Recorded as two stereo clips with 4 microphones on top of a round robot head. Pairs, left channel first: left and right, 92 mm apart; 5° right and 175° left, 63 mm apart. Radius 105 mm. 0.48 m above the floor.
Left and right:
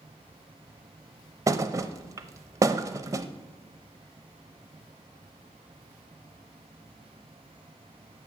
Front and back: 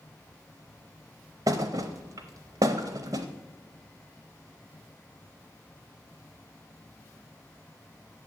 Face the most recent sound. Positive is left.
turn(degrees=-145)